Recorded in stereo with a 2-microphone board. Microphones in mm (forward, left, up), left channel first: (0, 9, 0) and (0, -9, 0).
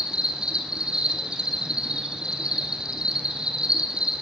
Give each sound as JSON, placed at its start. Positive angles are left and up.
{"t": 0.0, "sound": "an insect", "side_deg": -60, "distance_m": 2.0}